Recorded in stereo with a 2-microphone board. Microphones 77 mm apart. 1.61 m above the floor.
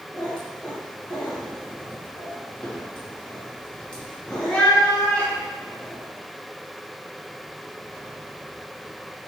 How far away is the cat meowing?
About 0.9 m.